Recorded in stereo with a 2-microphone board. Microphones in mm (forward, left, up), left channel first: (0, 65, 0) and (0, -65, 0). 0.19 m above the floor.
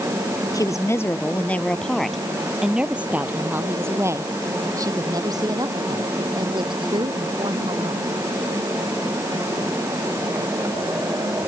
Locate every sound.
0.5 s a woman speaking: 25° left (ahead or behind); by 8.1 s 40° right (ahead or behind)